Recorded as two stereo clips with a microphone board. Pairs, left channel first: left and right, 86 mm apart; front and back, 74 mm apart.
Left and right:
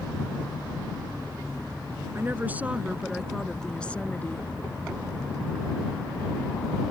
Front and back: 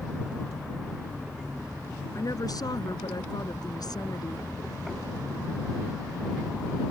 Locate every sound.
2.1 s a woman speaking: 30° right; by 4.5 s 25° left